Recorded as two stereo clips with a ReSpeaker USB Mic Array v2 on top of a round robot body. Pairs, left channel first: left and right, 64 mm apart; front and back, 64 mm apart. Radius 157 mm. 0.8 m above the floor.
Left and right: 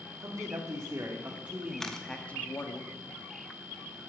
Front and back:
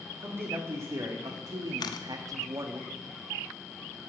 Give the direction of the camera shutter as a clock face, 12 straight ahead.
12 o'clock.